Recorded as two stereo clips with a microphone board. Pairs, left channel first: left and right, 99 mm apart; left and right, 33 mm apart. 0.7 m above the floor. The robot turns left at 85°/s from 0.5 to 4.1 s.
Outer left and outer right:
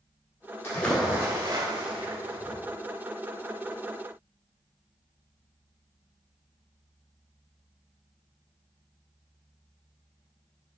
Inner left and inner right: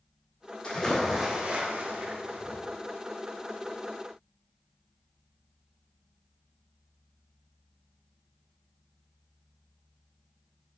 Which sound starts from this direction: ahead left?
A splash, at 0.6 s.